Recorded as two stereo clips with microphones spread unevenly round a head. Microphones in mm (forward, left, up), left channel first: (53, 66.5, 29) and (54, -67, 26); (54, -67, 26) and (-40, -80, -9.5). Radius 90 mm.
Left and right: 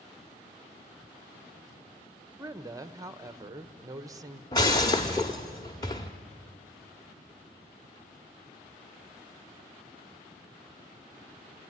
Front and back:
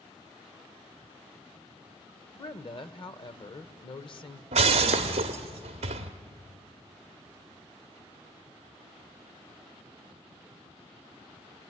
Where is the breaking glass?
155° left, 1.0 m.